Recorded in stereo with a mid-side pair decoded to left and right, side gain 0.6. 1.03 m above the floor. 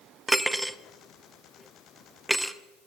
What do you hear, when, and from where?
0.3 s cutlery clinking: 5° right, 0.6 m